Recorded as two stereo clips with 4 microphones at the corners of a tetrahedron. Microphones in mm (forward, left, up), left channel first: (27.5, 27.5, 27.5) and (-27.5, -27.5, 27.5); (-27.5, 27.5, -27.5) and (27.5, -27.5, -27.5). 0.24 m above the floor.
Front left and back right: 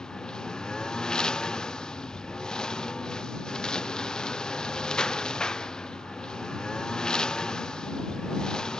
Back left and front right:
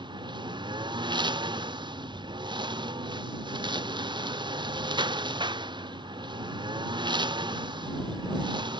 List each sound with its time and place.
0.0 s a lawn mower: 35° right